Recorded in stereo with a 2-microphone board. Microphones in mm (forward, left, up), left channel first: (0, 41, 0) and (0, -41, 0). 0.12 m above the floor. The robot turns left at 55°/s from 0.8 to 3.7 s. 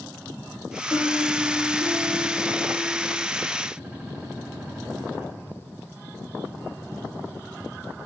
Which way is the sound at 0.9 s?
155° left.